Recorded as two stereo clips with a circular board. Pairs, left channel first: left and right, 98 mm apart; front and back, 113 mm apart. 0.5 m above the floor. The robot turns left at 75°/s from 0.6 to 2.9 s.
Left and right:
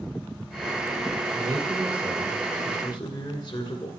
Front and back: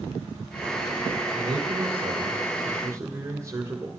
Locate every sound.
1.3 s a man speaking: 130° right, 2 m; by 3.9 s 115° left, 2 m